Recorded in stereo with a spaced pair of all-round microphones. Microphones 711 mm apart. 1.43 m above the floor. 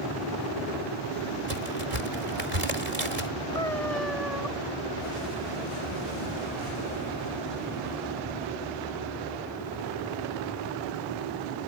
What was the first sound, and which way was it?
A crack, 60° right (ahead or behind).